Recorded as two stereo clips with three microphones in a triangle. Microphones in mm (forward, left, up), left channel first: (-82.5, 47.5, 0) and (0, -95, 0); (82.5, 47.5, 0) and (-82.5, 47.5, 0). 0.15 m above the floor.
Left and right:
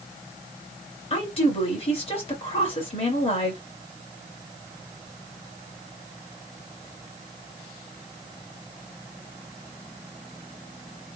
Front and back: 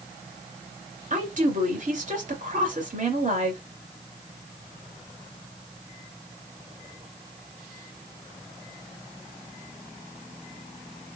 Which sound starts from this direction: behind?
A woman speaking, at 1.1 s.